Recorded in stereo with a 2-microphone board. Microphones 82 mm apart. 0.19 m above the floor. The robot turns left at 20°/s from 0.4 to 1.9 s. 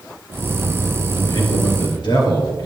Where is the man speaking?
60° left (ahead or behind), 4 m; by 2.7 s 65° left (ahead or behind), 4 m.